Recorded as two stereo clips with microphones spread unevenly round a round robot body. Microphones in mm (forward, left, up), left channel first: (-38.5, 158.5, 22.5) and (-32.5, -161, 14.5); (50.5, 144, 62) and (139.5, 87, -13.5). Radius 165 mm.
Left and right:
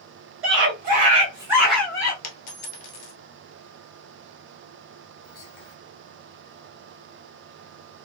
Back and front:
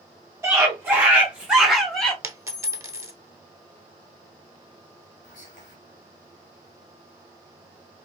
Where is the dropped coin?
45° left, 1.0 m.